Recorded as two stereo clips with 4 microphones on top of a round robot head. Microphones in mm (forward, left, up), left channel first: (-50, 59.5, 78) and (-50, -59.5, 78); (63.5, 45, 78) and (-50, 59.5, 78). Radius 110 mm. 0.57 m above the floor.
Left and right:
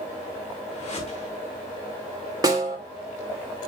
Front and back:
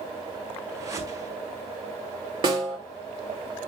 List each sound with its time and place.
0.7 s a whoosh: 115° left, 4.5 m
2.4 s a snare drum: 145° right, 3 m